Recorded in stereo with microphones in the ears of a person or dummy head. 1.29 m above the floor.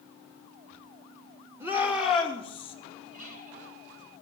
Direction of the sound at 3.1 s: 50° right (ahead or behind).